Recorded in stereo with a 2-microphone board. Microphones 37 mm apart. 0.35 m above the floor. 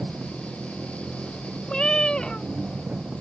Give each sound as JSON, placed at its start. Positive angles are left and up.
{"t": 0.0, "sound": "an engine running", "side_deg": -40}
{"t": 1.7, "sound": "a cat meowing", "side_deg": 25}